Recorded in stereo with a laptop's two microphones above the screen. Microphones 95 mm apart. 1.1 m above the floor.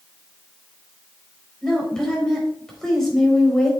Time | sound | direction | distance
1.6 | a woman speaking | 5° left (ahead or behind) | 4 m